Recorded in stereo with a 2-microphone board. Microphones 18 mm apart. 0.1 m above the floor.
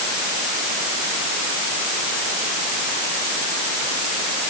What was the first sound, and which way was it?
Only background noise.